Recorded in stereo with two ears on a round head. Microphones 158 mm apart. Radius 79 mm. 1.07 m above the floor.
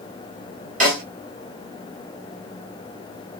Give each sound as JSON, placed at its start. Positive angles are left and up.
{"t": 0.8, "sound": "a snare drum", "side_deg": -45, "distance_m": 2.0}